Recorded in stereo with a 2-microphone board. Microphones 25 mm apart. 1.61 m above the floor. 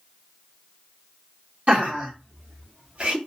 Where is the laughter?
50° right (ahead or behind), 1.4 m; by 3.2 s 40° right (ahead or behind), 0.6 m.